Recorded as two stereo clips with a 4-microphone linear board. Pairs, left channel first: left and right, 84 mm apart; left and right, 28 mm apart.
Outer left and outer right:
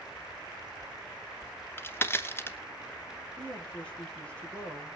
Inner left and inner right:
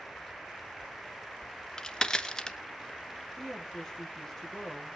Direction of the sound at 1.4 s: 25° left (ahead or behind).